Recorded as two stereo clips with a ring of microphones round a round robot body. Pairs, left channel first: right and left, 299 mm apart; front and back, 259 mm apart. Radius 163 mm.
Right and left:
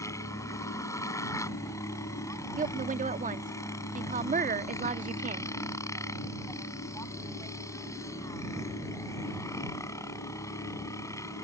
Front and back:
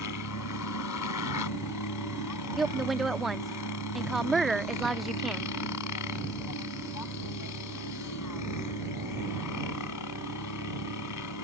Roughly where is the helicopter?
Ahead.